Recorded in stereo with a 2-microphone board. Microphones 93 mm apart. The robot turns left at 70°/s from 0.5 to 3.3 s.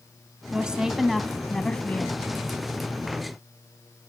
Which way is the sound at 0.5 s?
10° right (ahead or behind).